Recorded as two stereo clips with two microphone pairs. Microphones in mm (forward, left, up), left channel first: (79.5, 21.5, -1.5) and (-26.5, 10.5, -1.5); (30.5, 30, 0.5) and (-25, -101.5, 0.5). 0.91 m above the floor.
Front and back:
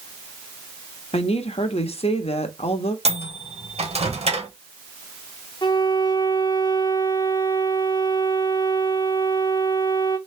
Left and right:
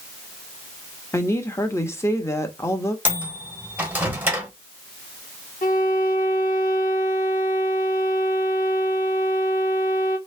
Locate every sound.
1.1 s a woman speaking: 5° right, 1.0 m
3.0 s a microwave: 170° left, 1.4 m
5.6 s a violin: 50° left, 0.9 m